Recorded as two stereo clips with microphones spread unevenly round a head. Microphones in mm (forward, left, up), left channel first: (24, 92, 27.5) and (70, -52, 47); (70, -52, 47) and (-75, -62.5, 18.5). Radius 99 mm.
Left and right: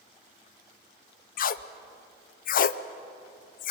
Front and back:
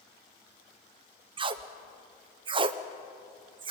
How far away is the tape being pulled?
About 0.6 m.